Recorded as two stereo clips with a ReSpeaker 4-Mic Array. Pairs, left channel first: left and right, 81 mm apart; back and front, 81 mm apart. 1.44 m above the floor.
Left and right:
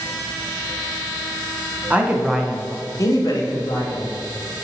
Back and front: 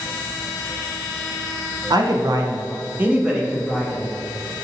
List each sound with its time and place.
1.9 s a man speaking: 20° right, 0.7 m; by 4.1 s 100° left, 0.9 m